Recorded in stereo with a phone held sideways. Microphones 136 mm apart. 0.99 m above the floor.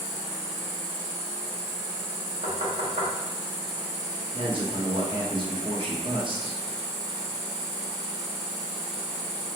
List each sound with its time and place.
0.0 s an insect: 45° left (ahead or behind), 1.8 m
2.4 s knocking: 65° right (ahead or behind), 1.0 m
4.3 s a man speaking: 40° right (ahead or behind), 1.1 m